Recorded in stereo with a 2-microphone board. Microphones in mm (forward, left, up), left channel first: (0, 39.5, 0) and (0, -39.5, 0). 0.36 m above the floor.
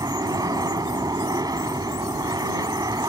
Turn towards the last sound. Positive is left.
turn(degrees=-50)  # may be behind; listen again after turning